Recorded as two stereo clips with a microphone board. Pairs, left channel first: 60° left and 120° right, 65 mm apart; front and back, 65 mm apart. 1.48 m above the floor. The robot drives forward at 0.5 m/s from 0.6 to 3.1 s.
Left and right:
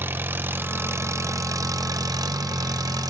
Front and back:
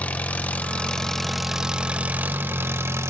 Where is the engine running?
65° right, 1.0 m; by 3.1 s 135° right, 1.2 m.